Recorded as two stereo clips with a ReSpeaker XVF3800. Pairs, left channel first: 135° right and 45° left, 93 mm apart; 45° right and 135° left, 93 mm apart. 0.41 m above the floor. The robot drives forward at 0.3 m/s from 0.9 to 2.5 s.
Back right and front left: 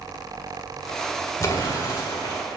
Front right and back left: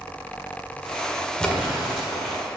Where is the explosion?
120° right, 1.6 m; by 2.4 s 135° right, 1.7 m.